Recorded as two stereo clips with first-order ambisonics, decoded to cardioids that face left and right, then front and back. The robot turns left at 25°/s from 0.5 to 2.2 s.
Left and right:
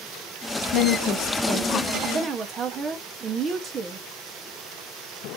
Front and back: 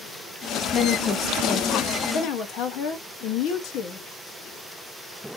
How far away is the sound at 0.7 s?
About 0.7 m.